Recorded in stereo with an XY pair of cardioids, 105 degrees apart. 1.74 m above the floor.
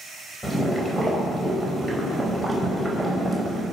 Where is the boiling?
5° left, 5 m.